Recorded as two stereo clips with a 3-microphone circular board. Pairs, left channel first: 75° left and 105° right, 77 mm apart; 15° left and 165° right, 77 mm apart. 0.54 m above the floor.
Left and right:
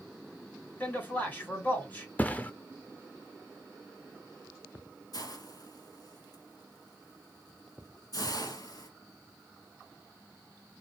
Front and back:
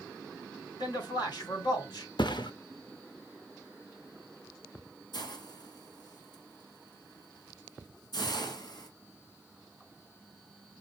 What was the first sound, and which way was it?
A man speaking, 5° left.